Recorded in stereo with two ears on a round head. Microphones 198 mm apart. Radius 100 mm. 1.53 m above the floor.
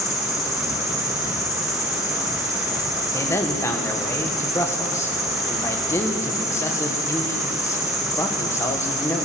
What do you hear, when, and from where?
0.0 s an insect: centre (ahead or behind), 2.5 m
3.1 s a man speaking: 15° left (ahead or behind), 1.5 m